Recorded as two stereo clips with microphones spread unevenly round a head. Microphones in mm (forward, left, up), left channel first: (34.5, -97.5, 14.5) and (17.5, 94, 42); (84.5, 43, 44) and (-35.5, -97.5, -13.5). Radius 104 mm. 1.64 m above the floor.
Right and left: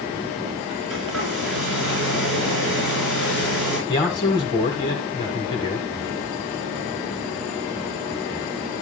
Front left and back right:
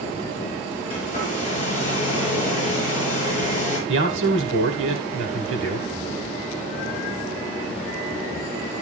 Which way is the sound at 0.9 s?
115° left.